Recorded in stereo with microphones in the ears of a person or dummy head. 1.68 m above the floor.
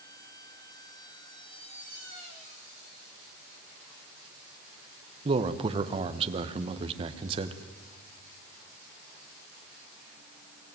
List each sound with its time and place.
5.2 s a man speaking: 30° right (ahead or behind), 1.3 m